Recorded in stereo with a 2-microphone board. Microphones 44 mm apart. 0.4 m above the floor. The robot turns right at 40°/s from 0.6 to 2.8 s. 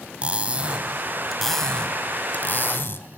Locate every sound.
0.2 s cutlery clinking: 25° right, 1.6 m; by 3.1 s 60° left, 1.6 m